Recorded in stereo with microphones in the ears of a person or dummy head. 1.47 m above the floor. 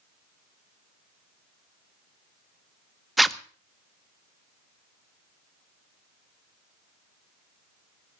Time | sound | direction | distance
3.2 | a zipper | 5° right (ahead or behind) | 0.5 m